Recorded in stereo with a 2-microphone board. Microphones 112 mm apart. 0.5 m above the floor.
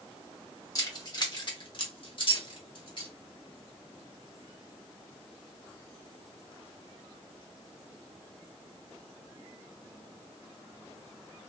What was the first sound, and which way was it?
Keys jangling, 30° left (ahead or behind).